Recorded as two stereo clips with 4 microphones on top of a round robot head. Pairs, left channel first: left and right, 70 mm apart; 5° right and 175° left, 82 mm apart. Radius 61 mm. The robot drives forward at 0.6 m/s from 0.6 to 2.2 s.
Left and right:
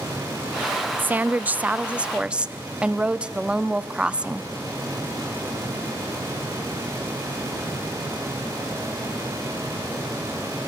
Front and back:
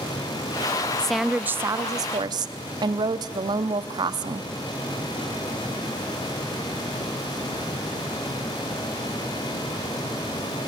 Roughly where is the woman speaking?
Right.